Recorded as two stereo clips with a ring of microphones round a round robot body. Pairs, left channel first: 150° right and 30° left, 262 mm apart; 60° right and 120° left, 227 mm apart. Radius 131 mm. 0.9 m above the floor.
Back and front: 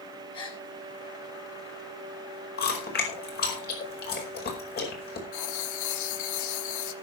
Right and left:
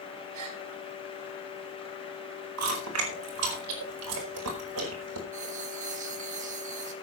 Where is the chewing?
155° left, 4.5 m.